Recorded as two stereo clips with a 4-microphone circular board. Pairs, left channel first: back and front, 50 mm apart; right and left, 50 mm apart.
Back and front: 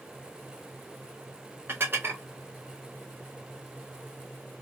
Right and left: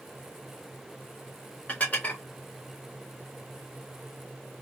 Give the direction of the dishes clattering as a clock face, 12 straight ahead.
1 o'clock.